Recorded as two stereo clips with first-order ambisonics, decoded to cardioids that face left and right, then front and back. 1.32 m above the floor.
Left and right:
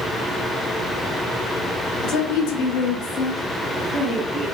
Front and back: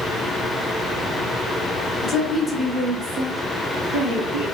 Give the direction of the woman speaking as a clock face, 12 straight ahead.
10 o'clock.